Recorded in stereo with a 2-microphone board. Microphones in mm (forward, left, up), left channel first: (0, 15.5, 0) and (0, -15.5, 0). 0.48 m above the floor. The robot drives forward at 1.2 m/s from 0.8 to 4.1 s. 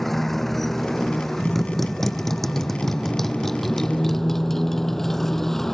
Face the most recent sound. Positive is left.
turn(degrees=10)  # may be behind; listen again after turning